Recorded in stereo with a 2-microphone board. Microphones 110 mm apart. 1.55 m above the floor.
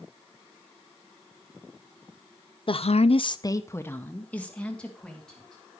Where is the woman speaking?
55° left (ahead or behind), 0.6 m; by 5.6 s 5° left (ahead or behind), 3 m.